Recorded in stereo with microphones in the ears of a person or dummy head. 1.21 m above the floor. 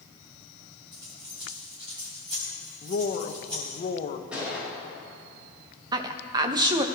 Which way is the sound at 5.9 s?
25° right (ahead or behind).